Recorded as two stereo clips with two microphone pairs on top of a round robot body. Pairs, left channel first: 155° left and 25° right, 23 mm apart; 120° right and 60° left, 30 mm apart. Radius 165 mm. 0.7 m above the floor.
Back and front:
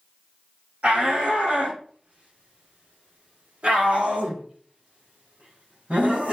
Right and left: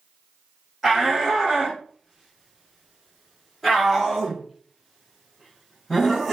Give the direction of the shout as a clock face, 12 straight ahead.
1 o'clock.